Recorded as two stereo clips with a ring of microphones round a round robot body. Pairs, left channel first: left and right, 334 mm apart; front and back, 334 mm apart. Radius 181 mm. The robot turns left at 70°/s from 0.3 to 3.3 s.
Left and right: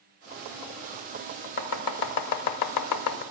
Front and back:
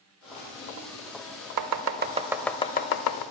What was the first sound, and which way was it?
Chopping, 150° left.